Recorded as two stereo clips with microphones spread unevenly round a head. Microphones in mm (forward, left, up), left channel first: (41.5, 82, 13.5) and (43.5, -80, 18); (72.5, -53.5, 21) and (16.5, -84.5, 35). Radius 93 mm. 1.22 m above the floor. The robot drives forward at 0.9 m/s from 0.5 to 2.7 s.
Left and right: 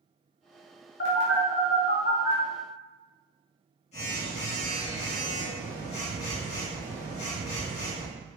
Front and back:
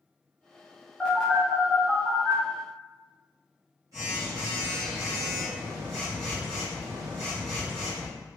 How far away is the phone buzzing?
About 1.5 m.